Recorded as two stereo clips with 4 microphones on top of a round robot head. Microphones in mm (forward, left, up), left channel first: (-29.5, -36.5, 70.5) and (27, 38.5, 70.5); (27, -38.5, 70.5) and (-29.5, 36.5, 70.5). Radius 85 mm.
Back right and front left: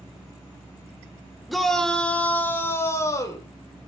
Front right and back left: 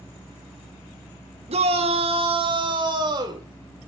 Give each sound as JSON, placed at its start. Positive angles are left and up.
{"t": 1.5, "sound": "a shout", "azimuth_deg": 145, "distance_m": 4.0}